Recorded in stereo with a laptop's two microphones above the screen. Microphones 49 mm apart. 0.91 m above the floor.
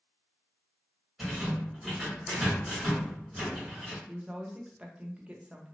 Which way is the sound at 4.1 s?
20° right (ahead or behind).